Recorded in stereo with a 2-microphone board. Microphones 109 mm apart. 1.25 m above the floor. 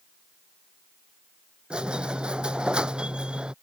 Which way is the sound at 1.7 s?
10° right (ahead or behind).